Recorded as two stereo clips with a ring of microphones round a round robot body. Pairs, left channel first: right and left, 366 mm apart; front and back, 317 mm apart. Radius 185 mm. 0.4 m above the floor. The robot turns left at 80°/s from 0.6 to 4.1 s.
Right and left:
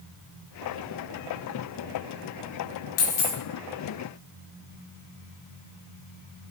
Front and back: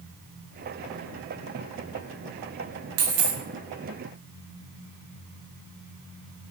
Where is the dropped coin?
145° right, 0.7 m; by 3.4 s straight behind, 0.7 m.